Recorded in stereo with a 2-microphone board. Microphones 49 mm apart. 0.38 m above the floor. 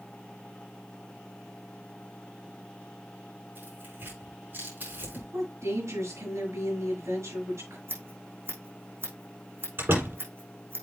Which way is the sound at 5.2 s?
70° right (ahead or behind).